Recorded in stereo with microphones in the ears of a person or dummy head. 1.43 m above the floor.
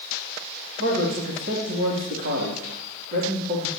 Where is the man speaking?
65° right (ahead or behind), 3.5 m.